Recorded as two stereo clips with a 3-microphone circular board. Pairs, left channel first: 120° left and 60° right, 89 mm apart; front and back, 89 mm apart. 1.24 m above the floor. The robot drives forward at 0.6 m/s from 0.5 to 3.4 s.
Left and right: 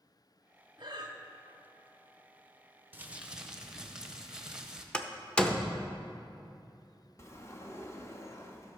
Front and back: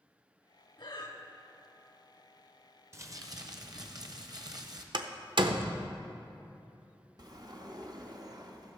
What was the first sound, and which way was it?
Breathing, 25° right.